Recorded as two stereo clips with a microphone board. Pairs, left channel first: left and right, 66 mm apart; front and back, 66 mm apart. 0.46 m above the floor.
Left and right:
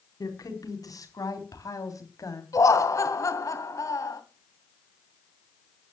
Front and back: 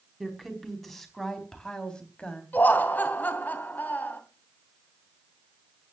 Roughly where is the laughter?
Ahead left.